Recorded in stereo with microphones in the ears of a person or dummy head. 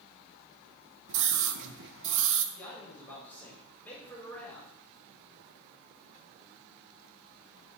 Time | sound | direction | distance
1.1 | a scream | 60° right (ahead or behind) | 0.9 m
2.5 | a man speaking | 20° left (ahead or behind) | 3 m